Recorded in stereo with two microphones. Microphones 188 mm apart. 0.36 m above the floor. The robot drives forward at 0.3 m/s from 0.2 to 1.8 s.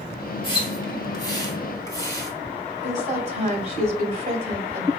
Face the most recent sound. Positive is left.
turn(degrees=-40)  # may be behind; listen again after turning